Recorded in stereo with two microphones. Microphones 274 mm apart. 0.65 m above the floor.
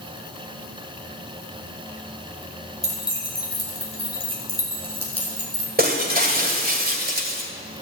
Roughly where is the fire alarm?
I don't hear a fire alarm.